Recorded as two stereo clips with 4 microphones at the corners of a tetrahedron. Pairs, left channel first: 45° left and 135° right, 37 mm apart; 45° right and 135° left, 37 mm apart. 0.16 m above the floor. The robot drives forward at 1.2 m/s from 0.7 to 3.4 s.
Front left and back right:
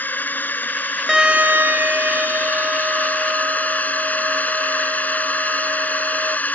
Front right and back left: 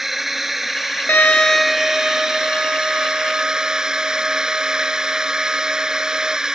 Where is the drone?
55° left; by 6.5 s 70° left.